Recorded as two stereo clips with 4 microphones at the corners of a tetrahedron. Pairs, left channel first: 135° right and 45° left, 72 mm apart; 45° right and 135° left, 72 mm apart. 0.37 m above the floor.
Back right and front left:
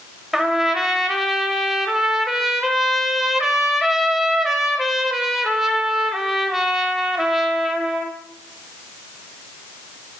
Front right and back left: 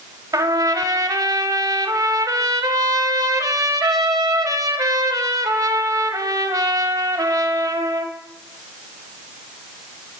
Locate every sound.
0.3 s a trumpet: 130° left, 0.8 m